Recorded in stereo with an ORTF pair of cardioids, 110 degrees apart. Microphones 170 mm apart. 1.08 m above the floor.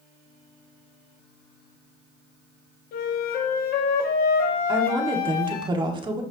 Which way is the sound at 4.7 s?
30° right.